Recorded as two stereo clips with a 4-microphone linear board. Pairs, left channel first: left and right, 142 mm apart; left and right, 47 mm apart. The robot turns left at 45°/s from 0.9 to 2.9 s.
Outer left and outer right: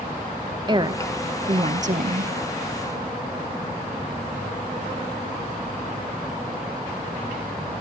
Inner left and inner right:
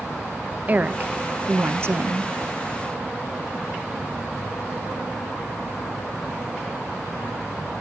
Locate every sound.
0.7 s a woman speaking: 40° right, 1.0 m; by 2.3 s 100° right, 1.0 m